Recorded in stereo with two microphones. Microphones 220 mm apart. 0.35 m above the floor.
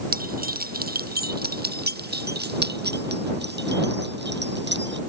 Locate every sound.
0.1 s keys jangling: 45° right (ahead or behind); by 5.0 s 60° right (ahead or behind)